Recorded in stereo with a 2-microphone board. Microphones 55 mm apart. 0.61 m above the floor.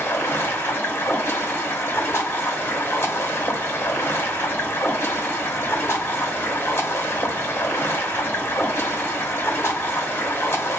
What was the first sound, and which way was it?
Running water, 50° left (ahead or behind).